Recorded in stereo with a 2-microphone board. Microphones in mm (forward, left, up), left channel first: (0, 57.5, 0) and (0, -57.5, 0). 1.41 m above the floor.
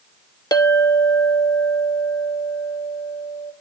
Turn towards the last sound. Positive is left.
turn(degrees=35)  # may be behind; listen again after turning